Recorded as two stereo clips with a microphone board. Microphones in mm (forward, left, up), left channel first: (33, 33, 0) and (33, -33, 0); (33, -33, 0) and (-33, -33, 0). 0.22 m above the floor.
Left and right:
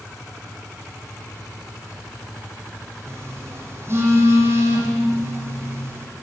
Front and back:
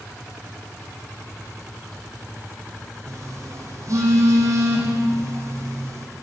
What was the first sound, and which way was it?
A phone buzzing, 140° right.